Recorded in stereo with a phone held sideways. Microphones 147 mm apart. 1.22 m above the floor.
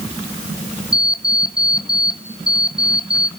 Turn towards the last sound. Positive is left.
turn(degrees=25)  # may be behind; listen again after turning